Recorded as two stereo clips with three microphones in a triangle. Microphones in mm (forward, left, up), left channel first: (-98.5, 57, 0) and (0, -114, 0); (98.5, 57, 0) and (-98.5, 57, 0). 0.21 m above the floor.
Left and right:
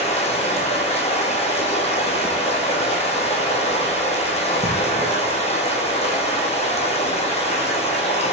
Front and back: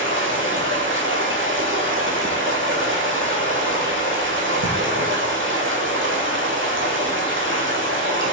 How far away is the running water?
About 1.0 m.